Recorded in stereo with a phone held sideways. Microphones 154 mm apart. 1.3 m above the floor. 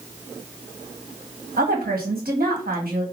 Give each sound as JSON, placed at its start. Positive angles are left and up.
{"t": 1.6, "sound": "a woman speaking", "side_deg": -75, "distance_m": 1.9}